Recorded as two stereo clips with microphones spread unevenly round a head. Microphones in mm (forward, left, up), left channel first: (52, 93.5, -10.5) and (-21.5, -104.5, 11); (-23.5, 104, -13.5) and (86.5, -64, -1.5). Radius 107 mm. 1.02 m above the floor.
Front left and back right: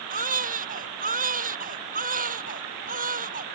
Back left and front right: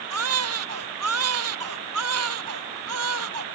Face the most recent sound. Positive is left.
turn(degrees=-60)